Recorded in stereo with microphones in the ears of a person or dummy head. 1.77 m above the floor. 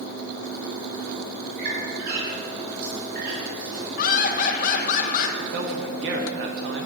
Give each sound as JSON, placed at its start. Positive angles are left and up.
{"t": 1.6, "sound": "a squeak", "side_deg": -50, "distance_m": 4.0}
{"t": 4.0, "sound": "laughter", "side_deg": 50, "distance_m": 1.7}
{"t": 5.4, "sound": "a man speaking", "side_deg": -60, "distance_m": 1.5}